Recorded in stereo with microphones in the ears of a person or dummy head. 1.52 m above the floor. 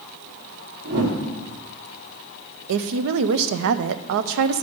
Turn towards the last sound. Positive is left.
turn(degrees=-70)  # may be behind; listen again after turning